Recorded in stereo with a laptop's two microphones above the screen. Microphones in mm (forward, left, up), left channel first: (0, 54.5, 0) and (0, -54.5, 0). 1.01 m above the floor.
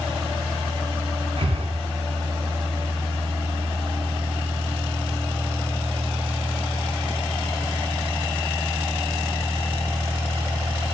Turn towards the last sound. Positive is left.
turn(degrees=-65)  # may be behind; listen again after turning